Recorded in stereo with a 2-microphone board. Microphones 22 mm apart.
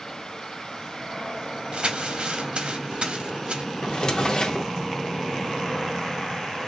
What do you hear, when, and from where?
1.7 s crumpling: 50° right (ahead or behind), 0.8 m
3.8 s a drawer: 45° left (ahead or behind), 0.6 m